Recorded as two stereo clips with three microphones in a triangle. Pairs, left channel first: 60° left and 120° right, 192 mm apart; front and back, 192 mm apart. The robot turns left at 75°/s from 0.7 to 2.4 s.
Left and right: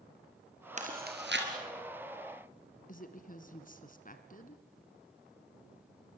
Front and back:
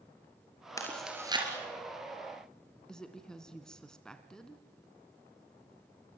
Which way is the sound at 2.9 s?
85° left.